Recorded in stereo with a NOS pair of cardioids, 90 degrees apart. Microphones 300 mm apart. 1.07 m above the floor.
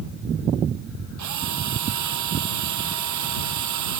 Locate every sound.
1.2 s a drill: 65° right